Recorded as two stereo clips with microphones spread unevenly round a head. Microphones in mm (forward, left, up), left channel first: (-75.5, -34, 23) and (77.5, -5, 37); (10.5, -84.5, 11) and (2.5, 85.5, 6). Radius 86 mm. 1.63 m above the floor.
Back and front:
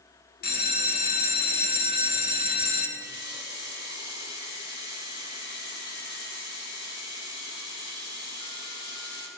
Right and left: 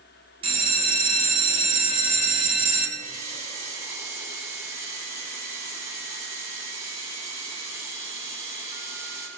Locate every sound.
0.4 s a bell: 155° left, 1.9 m
3.0 s a running tap: 165° left, 3.5 m